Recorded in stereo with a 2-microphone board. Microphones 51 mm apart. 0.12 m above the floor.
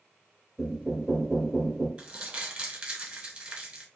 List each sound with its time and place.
0.6 s knocking: centre (ahead or behind), 1.3 m
2.0 s crumpling: 20° right (ahead or behind), 1.4 m